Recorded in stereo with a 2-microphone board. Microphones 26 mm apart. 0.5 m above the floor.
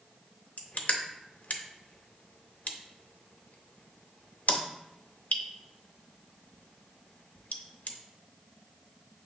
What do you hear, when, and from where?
0.6 s crushing: 80° left, 0.5 m